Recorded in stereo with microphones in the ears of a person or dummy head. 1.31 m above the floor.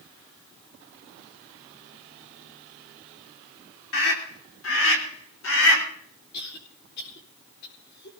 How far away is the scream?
About 3.5 m.